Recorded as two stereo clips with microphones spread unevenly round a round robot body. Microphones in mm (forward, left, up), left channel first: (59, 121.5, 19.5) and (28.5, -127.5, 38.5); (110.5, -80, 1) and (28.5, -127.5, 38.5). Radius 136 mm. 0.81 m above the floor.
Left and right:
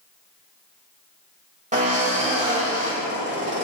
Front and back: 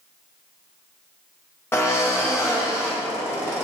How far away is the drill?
About 3 m.